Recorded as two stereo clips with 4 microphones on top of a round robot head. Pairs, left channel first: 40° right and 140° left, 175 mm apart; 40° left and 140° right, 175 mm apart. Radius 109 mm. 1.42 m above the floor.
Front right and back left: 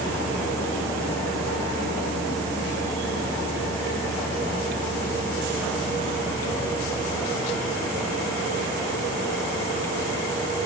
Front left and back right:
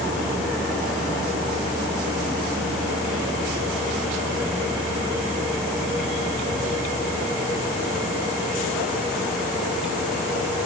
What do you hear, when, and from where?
Only background noise.